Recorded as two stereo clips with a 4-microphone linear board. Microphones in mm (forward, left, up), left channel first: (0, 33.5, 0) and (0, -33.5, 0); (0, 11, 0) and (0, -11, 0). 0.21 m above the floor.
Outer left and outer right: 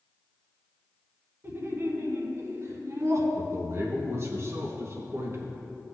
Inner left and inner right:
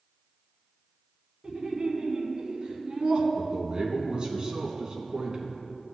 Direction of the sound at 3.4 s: 45° right (ahead or behind).